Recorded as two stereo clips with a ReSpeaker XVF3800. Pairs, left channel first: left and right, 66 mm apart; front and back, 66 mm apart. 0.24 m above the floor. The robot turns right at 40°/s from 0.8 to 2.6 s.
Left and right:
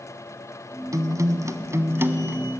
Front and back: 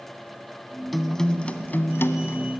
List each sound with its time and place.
0.9 s a guitar: 90° right, 1.0 m; by 2.4 s 30° right, 1.0 m